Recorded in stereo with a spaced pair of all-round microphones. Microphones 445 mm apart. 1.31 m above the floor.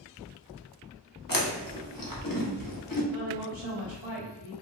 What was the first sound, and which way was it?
Chewing, 50° left (ahead or behind).